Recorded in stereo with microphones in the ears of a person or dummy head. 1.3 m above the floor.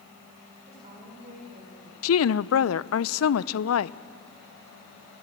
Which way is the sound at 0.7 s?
35° right (ahead or behind).